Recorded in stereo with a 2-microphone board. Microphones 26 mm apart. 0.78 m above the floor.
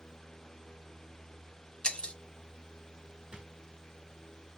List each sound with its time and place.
1.8 s breaking glass: 40° left (ahead or behind), 0.9 m
3.3 s a drawer: 20° right (ahead or behind), 3 m